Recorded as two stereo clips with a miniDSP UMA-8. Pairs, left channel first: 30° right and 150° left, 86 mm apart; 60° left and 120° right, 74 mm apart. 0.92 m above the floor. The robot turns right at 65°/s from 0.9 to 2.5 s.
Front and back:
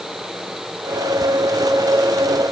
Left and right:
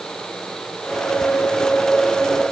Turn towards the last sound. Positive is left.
No sound to turn to.